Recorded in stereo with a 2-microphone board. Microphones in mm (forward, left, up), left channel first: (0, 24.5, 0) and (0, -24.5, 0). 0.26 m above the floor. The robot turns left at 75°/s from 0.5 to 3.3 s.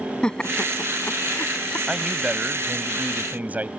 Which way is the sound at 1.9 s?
15° right.